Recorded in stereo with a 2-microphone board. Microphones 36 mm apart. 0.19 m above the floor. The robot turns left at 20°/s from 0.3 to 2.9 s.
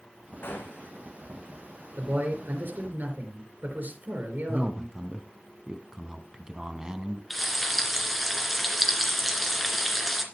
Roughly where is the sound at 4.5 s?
Right.